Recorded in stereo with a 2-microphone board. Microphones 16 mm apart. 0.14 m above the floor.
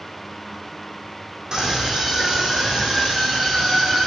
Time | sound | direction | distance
1.5 | a scream | 45° right (ahead or behind) | 7.5 m